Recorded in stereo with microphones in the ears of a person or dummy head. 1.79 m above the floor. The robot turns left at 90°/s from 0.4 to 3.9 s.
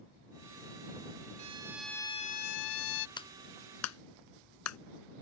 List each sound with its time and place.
1.4 s a violin: 140° right; by 3.1 s 70° left
3.2 s a clap: 25° left (ahead or behind); by 4.8 s 90° left